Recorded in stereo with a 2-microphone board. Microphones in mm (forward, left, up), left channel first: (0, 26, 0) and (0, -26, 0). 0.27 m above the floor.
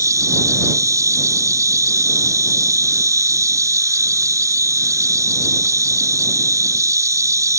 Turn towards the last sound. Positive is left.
turn(degrees=-80)